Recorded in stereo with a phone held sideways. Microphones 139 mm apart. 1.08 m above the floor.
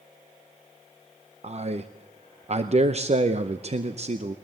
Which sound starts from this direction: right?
A man speaking, at 1.4 s.